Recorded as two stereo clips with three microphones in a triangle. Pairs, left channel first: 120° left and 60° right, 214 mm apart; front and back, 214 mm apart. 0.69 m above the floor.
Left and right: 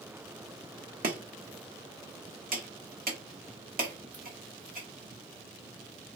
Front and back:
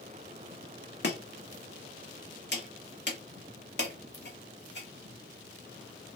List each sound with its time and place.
1.0 s chopping: 20° right, 1.1 m